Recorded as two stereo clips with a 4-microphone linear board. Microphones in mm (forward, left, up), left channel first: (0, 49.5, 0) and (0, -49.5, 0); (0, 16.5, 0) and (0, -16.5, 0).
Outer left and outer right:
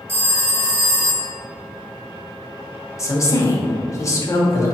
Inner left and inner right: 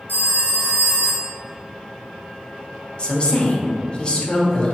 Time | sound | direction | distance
0.1 | a phone ringing | 65° left (ahead or behind) | 0.9 m
3.0 | a woman speaking | 30° left (ahead or behind) | 0.8 m